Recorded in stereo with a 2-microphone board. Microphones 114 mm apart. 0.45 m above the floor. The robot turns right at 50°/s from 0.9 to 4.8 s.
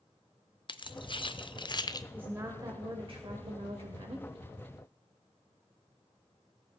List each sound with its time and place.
0.7 s keys jangling: 45° left (ahead or behind), 0.5 m; by 2.0 s 35° left (ahead or behind), 0.5 m
2.1 s a woman speaking: 165° right, 1.5 m; by 4.3 s 55° right, 1.5 m